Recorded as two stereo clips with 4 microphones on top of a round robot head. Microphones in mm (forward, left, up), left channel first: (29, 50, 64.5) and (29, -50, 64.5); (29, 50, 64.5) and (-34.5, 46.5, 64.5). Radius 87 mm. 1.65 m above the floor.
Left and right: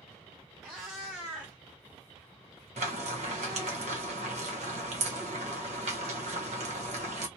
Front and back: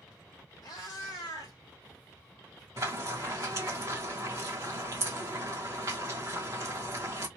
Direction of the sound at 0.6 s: 5° right.